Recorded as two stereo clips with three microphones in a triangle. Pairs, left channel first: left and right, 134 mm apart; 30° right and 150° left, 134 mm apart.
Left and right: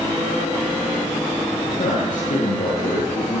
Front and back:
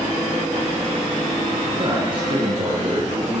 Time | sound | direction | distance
1.7 | a man speaking | 100° left | 9.5 m